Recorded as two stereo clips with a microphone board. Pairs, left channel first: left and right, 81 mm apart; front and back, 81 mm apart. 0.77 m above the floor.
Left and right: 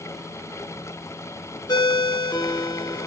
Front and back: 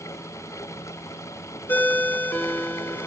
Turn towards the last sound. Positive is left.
turn(degrees=65)